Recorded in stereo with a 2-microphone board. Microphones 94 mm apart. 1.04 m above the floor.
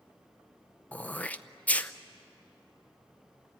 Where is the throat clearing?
15° left (ahead or behind), 0.6 m.